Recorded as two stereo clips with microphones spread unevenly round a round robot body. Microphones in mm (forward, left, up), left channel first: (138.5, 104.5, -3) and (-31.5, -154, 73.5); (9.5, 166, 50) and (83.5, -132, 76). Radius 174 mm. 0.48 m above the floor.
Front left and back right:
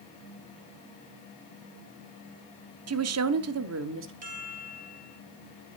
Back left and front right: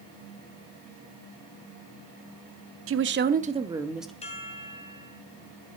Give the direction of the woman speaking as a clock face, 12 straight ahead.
3 o'clock.